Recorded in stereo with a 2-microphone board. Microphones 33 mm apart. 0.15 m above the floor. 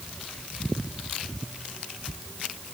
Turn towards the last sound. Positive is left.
No sound to turn to.